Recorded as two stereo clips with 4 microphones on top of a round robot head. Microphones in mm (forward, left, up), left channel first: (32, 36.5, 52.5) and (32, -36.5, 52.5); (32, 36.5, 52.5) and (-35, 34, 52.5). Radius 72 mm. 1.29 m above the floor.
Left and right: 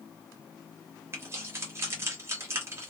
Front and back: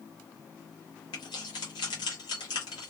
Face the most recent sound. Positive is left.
turn(degrees=-35)